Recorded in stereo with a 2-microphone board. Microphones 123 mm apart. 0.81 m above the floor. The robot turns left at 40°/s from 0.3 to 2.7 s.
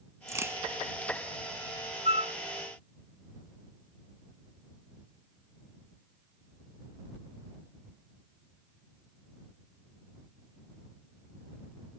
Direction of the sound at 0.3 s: 25° right (ahead or behind).